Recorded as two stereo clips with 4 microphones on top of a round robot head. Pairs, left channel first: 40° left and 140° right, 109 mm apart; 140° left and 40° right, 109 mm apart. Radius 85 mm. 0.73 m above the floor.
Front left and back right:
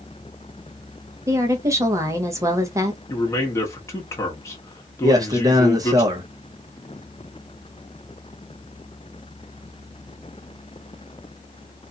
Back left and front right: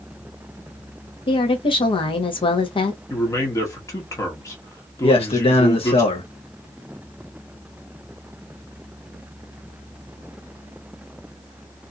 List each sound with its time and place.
1.3 s a woman speaking: 165° left, 0.9 m
3.1 s a man speaking: 90° left, 1.0 m
5.0 s a man speaking: 165° left, 1.0 m